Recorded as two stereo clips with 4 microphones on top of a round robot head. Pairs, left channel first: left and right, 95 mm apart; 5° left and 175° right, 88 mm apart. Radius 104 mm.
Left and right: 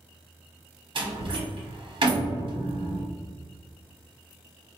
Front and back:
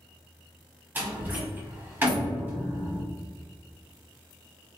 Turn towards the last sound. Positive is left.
turn(degrees=-110)